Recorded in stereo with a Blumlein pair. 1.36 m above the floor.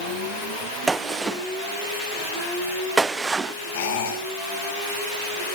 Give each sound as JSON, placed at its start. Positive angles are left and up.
{"t": 0.9, "sound": "a gunshot", "azimuth_deg": -15, "distance_m": 0.9}
{"t": 3.7, "sound": "a squeak", "azimuth_deg": 60, "distance_m": 9.0}